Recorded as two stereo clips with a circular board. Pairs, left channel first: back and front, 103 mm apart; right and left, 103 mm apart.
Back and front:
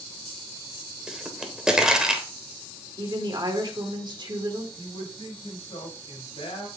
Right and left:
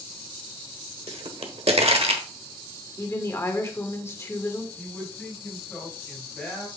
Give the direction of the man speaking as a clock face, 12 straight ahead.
6 o'clock.